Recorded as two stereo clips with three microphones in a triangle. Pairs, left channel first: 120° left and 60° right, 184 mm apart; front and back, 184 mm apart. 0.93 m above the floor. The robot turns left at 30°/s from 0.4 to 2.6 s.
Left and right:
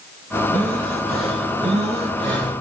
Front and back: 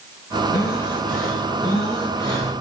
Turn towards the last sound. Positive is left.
turn(degrees=-80)